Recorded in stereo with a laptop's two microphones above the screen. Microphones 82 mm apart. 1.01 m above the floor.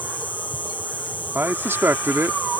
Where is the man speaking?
30° right (ahead or behind).